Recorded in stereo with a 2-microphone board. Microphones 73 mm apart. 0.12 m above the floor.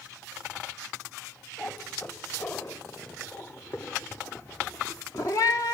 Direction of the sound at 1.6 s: 25° left (ahead or behind).